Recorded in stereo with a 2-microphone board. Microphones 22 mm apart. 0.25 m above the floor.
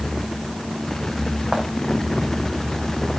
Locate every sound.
1.5 s footsteps: 40° right (ahead or behind), 3 m